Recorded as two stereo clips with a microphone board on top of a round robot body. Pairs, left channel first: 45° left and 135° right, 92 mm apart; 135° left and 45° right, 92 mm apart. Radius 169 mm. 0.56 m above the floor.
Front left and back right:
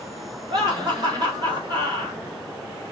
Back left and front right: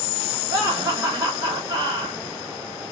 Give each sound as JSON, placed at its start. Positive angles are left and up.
{"t": 0.5, "sound": "laughter", "azimuth_deg": -100, "distance_m": 2.5}